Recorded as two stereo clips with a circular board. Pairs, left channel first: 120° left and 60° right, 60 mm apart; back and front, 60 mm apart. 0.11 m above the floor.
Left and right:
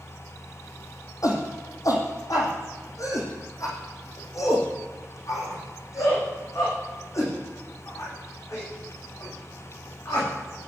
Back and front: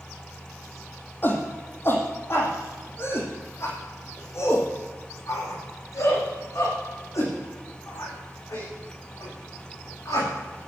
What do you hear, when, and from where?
1.2 s a shout: 130° left, 5 m; by 10.7 s 155° left, 12 m